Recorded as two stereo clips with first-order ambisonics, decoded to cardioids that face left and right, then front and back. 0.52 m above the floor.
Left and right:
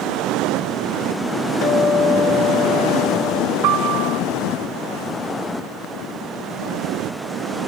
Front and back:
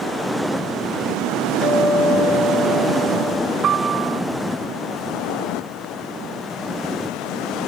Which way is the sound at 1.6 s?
70° left.